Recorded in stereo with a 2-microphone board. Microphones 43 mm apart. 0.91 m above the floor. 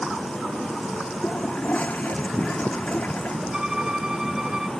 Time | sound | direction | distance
1.2 | a toilet flushing | 35° left (ahead or behind) | ?
3.5 | a violin | 20° right (ahead or behind) | ?